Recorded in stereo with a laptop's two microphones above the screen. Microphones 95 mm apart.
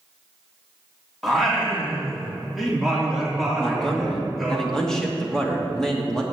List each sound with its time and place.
1.2 s singing: centre (ahead or behind), 2.5 m
3.6 s a man speaking: 5° left (ahead or behind), 2.0 m